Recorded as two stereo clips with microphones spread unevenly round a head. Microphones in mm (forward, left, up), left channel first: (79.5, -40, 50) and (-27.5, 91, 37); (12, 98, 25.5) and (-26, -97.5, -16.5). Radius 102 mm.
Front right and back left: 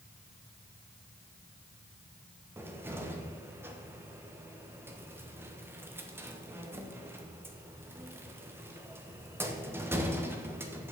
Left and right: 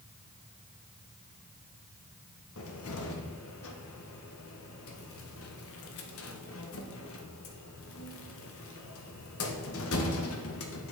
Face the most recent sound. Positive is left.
turn(degrees=55)